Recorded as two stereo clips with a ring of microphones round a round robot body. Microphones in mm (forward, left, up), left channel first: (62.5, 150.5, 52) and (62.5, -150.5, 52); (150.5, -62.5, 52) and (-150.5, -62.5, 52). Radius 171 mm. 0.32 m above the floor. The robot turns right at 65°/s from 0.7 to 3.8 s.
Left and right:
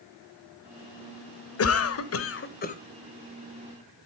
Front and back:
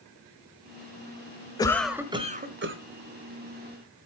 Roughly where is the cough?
Left.